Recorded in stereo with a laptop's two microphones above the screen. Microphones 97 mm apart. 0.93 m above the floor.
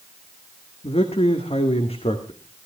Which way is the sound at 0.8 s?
80° left.